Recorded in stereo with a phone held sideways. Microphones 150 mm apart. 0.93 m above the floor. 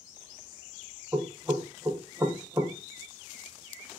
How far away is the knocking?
About 0.9 m.